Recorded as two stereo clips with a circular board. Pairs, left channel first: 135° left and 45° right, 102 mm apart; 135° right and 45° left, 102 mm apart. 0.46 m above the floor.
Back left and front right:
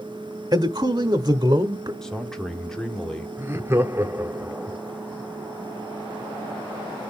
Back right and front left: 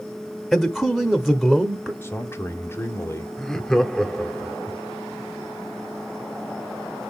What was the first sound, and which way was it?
A man speaking, 45° right.